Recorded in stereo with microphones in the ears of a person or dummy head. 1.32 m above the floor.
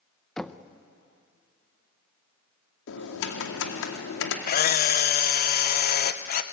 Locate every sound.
0.4 s knocking: 5° left (ahead or behind), 0.6 m
2.9 s typing on a keyboard: 75° left (ahead or behind), 2 m
4.5 s a camera shutter: 50° left (ahead or behind), 0.8 m